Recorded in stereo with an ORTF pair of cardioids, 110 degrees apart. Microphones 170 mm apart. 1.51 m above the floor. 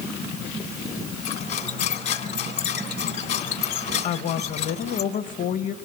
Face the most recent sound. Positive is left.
turn(degrees=50)